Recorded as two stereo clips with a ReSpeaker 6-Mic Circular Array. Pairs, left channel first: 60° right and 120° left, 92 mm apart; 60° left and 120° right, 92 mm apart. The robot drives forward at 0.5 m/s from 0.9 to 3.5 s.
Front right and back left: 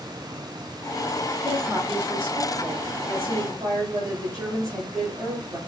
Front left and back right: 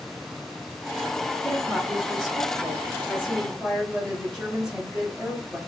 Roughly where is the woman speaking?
Behind left.